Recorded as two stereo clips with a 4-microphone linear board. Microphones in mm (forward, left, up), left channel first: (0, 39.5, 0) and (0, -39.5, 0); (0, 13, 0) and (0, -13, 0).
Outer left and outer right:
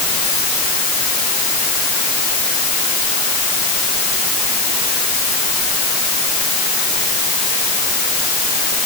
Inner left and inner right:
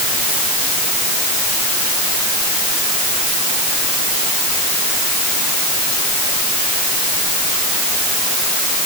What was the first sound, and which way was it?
Only background noise.